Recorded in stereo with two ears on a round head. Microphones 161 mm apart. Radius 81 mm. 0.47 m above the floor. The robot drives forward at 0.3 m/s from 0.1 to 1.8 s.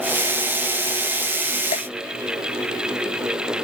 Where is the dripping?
40° left (ahead or behind).